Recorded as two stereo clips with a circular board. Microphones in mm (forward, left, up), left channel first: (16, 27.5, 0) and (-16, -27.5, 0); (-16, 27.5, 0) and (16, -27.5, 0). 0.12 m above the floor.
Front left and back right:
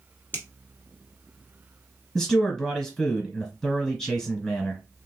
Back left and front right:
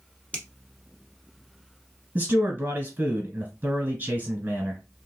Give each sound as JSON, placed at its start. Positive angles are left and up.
{"t": 0.3, "sound": "a finger snap", "azimuth_deg": 70, "distance_m": 1.2}
{"t": 2.1, "sound": "a man speaking", "azimuth_deg": -15, "distance_m": 1.7}